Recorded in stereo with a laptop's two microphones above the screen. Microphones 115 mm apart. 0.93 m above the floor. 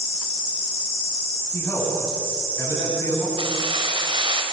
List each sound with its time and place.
1.5 s a man speaking: 25° left (ahead or behind), 9 m
3.4 s keys jangling: 50° right (ahead or behind), 4 m